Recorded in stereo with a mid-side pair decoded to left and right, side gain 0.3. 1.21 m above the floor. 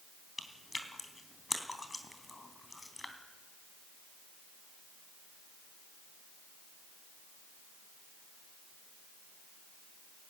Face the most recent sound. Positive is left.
turn(degrees=25)